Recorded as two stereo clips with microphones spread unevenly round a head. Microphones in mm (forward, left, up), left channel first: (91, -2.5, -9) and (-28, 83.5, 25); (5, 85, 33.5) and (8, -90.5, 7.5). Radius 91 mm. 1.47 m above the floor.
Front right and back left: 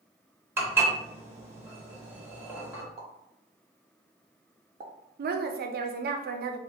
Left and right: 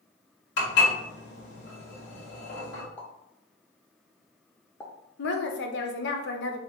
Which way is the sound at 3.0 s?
160° left.